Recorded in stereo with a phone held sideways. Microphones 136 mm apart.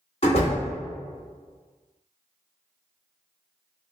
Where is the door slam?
45° left (ahead or behind), 1.4 m.